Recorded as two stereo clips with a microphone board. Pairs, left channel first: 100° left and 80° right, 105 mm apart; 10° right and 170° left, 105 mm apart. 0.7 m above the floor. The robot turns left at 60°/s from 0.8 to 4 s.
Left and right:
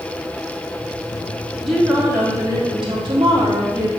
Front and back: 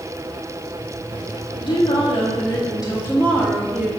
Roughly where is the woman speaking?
Ahead.